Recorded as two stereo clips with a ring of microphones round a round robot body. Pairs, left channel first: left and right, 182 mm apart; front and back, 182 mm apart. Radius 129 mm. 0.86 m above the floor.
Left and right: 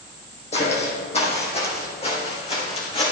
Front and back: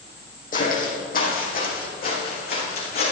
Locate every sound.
0.5 s footsteps: 40° left, 2 m; by 3.1 s 35° left, 3.5 m